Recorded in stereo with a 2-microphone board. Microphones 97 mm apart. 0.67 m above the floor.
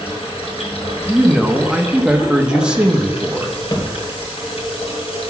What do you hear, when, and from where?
0.0 s running water: 90° left, 1.9 m
1.1 s a man speaking: 10° right (ahead or behind), 0.8 m
3.7 s a thud: 40° left (ahead or behind), 1.5 m